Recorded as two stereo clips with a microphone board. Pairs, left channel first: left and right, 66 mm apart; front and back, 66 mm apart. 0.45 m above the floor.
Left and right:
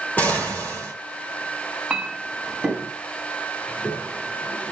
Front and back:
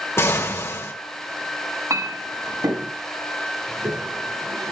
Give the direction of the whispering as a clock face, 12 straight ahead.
No whispering in this recording.